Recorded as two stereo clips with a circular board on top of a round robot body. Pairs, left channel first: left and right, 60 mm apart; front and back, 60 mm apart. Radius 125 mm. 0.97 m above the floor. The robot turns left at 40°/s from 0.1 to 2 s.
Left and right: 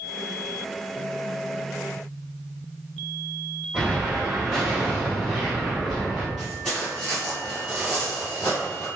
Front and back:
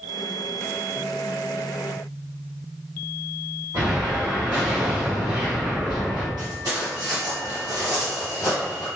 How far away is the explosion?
About 1.4 m.